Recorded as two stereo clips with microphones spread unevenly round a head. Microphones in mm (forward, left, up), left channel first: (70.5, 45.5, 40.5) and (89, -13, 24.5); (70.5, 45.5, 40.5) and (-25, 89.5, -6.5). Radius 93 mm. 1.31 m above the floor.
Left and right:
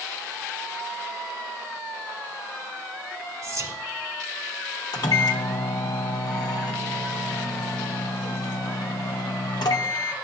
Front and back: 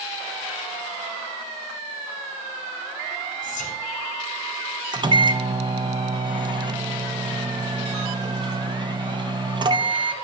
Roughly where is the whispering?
Ahead right.